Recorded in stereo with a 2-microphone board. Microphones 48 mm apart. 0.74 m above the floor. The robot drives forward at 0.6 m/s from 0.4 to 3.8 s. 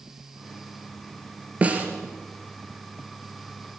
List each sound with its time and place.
1.6 s a snare drum: 30° right (ahead or behind), 3.5 m